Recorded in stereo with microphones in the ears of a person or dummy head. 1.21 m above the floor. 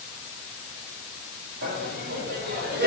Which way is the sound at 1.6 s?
55° right (ahead or behind).